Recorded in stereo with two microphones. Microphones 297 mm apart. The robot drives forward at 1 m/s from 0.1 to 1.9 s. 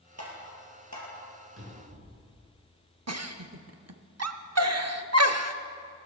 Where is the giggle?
55° right (ahead or behind), 0.7 m.